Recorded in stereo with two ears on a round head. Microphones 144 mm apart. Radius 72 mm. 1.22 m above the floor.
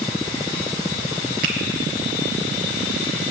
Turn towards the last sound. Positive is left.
turn(degrees=-60)  # may be behind; listen again after turning